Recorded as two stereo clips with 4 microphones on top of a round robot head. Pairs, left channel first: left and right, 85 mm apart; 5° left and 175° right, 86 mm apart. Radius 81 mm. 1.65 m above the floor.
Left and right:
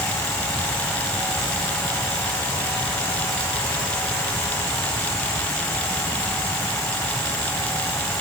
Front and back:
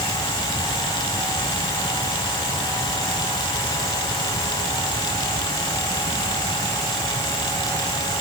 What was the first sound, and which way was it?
Only background noise.